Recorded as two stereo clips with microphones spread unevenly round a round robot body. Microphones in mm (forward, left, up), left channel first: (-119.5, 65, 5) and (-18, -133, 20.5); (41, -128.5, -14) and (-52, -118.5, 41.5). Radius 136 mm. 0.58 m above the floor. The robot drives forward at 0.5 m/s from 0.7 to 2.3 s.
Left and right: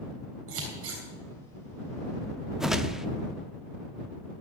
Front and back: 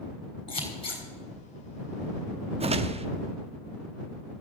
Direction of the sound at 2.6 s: 155° right.